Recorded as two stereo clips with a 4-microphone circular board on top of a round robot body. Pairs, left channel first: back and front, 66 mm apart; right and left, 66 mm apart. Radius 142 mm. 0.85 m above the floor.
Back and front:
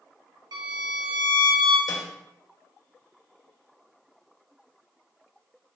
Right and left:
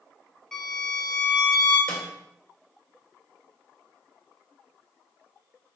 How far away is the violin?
About 1.3 m.